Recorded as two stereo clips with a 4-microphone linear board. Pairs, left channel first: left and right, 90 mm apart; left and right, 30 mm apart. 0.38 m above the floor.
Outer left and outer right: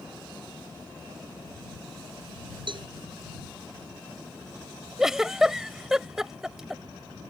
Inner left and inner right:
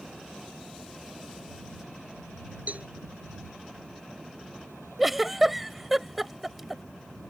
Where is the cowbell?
65° right (ahead or behind).